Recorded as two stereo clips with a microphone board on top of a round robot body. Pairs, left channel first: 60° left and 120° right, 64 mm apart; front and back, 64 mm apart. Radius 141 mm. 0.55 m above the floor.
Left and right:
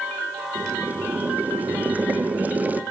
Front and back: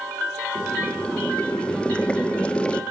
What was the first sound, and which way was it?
Boiling, 65° right.